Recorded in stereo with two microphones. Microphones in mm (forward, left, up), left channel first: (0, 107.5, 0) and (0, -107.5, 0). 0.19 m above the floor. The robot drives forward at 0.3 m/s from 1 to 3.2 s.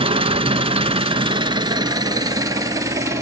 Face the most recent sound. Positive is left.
turn(degrees=-15)  # may be behind; listen again after turning